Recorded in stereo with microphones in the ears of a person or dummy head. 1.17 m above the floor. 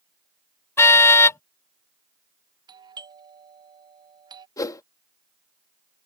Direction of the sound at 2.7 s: 20° right (ahead or behind).